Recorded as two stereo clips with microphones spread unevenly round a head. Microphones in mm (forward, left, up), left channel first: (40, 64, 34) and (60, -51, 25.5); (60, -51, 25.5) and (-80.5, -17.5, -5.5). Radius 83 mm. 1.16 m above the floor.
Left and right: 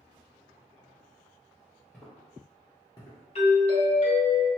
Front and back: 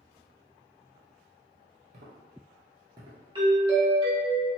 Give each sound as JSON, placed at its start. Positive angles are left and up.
{"t": 1.9, "sound": "footsteps", "azimuth_deg": 170, "distance_m": 1.3}
{"t": 3.4, "sound": "a doorbell", "azimuth_deg": 115, "distance_m": 1.6}